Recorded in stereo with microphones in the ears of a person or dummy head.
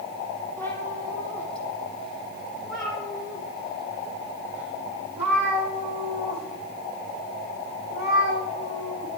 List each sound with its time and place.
0.6 s a cat meowing: 15° left (ahead or behind), 5 m; by 9.1 s 20° right (ahead or behind), 11.5 m